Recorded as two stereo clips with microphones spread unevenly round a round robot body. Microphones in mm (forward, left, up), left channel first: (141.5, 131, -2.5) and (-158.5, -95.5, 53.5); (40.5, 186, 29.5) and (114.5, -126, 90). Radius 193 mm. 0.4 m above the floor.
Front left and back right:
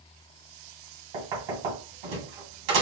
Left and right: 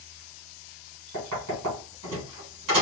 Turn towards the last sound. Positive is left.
turn(degrees=-130)